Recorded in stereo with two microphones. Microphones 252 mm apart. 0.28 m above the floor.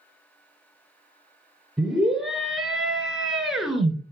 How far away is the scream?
About 3 m.